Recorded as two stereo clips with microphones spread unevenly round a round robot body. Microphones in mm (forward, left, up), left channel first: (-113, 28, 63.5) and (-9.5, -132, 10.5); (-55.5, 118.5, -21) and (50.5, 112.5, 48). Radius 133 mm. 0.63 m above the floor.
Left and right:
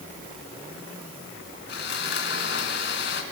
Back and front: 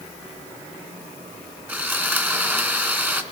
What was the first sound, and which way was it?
Sawing, 70° left.